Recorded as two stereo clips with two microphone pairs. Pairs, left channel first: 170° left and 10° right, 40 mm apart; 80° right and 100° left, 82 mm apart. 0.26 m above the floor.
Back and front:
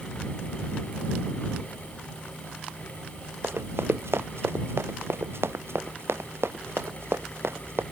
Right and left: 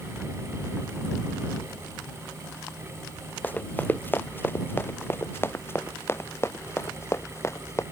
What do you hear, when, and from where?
3.4 s running footsteps: 15° right; by 7.8 s 25° right